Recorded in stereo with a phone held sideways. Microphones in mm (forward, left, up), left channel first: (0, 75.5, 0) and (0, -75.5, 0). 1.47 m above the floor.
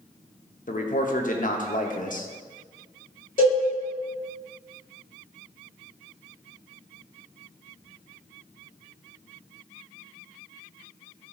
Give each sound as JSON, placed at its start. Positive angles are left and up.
{"t": 0.7, "sound": "a man speaking", "side_deg": 60, "distance_m": 0.7}
{"t": 3.4, "sound": "a cowbell", "side_deg": 60, "distance_m": 2.5}